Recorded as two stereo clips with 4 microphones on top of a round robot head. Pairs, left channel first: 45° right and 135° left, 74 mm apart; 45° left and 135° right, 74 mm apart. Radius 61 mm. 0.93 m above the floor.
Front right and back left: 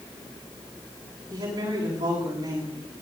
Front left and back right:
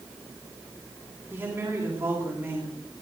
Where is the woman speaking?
165° left, 8.5 m.